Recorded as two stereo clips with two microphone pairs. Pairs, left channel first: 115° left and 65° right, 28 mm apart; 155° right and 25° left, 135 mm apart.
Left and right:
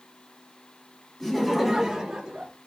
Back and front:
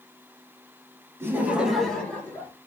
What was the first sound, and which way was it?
Laughter, 55° left.